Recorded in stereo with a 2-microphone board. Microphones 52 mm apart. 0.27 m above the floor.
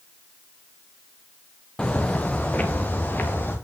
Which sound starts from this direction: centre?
Footsteps, at 1.8 s.